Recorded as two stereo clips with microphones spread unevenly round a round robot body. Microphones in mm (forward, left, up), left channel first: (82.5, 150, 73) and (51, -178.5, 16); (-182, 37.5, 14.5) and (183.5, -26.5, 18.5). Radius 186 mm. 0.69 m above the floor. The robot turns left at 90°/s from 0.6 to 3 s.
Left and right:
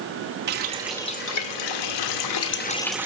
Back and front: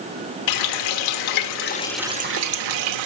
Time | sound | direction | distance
0.5 | a running tap | 155° right | 1.2 m